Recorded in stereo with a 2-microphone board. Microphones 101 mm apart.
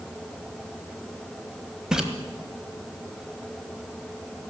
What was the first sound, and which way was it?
A splash, 5° right (ahead or behind).